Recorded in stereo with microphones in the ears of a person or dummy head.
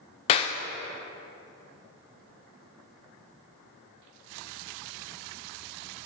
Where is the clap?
35° left (ahead or behind), 0.5 m.